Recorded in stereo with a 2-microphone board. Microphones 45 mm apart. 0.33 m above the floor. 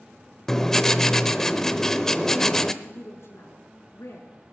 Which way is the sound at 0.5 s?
10° left (ahead or behind).